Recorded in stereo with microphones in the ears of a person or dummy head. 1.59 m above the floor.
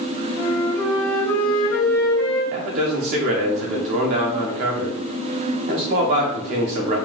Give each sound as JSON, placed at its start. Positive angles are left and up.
{"t": 0.4, "sound": "a flute", "side_deg": 10, "distance_m": 1.4}
{"t": 2.5, "sound": "a man speaking", "side_deg": -35, "distance_m": 0.5}